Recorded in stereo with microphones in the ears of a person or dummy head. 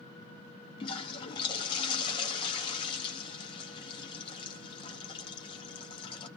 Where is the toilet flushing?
25° left (ahead or behind), 0.7 m.